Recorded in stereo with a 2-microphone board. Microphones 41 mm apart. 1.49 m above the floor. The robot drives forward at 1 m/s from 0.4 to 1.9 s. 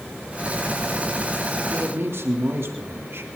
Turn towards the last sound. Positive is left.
turn(degrees=-70)  # may be behind; listen again after turning